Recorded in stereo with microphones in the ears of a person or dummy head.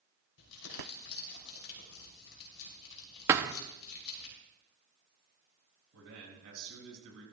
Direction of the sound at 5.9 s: 85° right.